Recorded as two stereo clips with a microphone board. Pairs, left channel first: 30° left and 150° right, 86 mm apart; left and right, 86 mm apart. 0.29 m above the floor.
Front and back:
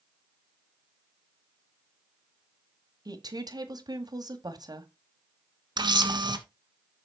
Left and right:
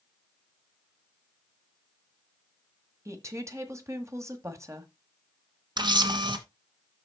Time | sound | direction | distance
3.0 | a woman speaking | 135° right | 1.7 m
5.8 | a camera shutter | 120° right | 1.4 m